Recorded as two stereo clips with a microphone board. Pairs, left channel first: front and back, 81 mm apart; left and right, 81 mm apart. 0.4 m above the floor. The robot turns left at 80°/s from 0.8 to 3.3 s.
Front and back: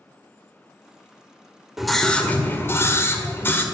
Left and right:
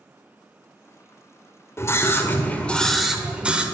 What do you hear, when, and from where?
1.8 s a scream: 100° left, 1.6 m; by 3.6 s 25° right, 1.6 m